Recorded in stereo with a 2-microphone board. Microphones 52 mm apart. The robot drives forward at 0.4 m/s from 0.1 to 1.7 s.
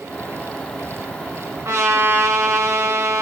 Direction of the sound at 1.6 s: 65° right (ahead or behind).